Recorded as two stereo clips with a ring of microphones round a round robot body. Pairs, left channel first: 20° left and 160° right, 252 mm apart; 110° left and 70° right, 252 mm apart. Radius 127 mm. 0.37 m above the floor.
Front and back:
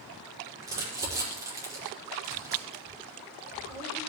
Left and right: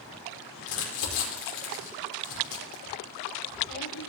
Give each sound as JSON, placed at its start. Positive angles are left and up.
{"t": 0.6, "sound": "crumpling", "azimuth_deg": 125, "distance_m": 6.0}